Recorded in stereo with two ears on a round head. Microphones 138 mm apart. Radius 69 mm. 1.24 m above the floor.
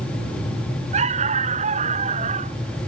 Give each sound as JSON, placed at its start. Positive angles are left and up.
{"t": 0.9, "sound": "a dog barking", "side_deg": -45}